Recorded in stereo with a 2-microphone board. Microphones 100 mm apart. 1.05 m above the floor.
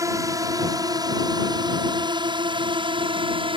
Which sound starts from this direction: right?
A drone, at 0.0 s.